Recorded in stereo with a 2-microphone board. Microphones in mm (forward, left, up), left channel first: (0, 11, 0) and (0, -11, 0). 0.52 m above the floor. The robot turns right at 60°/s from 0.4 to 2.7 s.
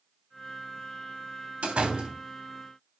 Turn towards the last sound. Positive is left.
turn(degrees=-15)